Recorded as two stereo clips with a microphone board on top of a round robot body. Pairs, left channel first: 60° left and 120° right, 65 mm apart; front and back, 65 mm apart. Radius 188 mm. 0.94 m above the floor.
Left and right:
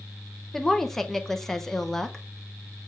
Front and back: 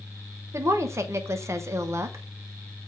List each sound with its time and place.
0.5 s a woman speaking: 145° left, 1.0 m